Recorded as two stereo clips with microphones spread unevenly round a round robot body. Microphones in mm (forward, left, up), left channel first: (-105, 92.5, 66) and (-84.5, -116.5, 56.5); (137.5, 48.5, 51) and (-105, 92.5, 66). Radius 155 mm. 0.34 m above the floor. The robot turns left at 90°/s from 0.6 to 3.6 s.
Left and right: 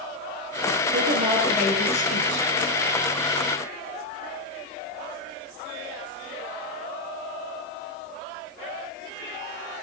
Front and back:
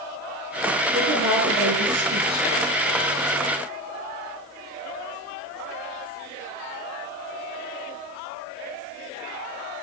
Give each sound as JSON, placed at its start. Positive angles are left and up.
{"t": 0.9, "sound": "a woman speaking", "azimuth_deg": -115, "distance_m": 8.5}